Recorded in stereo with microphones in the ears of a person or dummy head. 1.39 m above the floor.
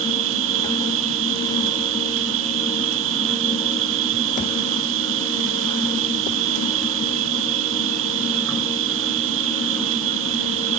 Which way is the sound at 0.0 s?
65° right (ahead or behind).